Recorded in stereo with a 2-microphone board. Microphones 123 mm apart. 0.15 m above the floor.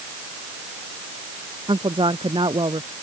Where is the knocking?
No knocking in this recording.